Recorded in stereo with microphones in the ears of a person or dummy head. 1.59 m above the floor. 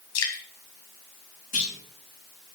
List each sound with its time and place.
0.1 s dripping: 85° left, 2.5 m
1.5 s a clunk: 40° left (ahead or behind), 3 m